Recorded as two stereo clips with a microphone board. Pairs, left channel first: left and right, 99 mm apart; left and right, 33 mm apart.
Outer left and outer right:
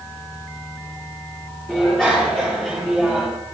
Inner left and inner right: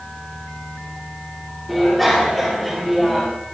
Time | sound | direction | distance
1.7 | a bicycle bell | 10° left (ahead or behind) | 9.5 m